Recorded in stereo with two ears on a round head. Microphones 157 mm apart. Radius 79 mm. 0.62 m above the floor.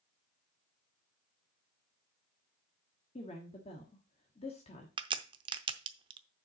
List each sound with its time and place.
3.1 s a woman speaking: 35° left (ahead or behind), 1.4 m
5.0 s a crack: 25° right (ahead or behind), 0.6 m